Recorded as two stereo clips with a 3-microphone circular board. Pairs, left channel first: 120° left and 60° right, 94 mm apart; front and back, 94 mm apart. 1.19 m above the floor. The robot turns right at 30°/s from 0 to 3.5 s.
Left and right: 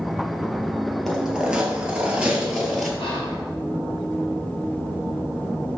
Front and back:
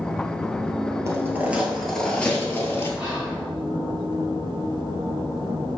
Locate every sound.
1.1 s footsteps: 150° right, 1.3 m; by 2.9 s 35° left, 1.3 m
3.0 s whispering: 145° left, 1.3 m; by 3.4 s 155° left, 1.3 m